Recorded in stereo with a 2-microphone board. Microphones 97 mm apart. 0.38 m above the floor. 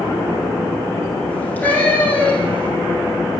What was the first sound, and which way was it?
A cat meowing, 15° left (ahead or behind).